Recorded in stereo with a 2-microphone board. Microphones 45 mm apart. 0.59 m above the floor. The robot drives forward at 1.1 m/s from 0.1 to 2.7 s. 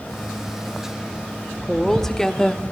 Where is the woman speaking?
5° left (ahead or behind), 1.6 m; by 2.6 s 15° left (ahead or behind), 0.7 m.